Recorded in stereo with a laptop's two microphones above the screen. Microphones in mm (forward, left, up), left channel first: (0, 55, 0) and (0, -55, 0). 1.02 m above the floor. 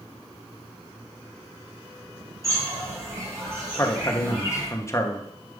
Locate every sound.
2.4 s a bird: 25° right (ahead or behind), 2 m
3.8 s a man speaking: 25° left (ahead or behind), 0.9 m